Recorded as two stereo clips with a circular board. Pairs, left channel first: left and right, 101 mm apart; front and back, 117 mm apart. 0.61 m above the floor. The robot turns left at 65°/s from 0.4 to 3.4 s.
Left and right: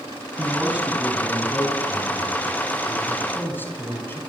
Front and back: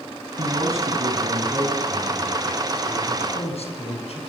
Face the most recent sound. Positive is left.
turn(degrees=20)